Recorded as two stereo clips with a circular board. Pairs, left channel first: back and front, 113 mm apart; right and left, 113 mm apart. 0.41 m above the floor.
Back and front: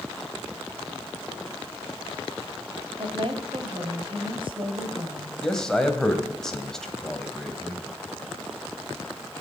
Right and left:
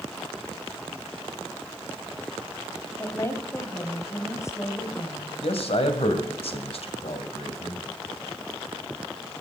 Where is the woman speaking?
30° right, 2 m.